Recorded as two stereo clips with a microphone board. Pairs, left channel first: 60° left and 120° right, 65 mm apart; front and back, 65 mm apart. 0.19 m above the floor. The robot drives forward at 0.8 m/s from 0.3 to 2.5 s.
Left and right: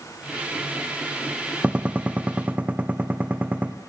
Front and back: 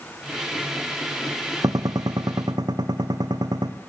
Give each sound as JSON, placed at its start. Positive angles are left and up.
{"t": 1.6, "sound": "a gunshot", "azimuth_deg": 170, "distance_m": 1.5}